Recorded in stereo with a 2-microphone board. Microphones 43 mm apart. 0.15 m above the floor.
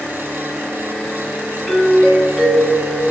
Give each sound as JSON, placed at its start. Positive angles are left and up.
{"t": 1.7, "sound": "a doorbell", "side_deg": 20, "distance_m": 1.8}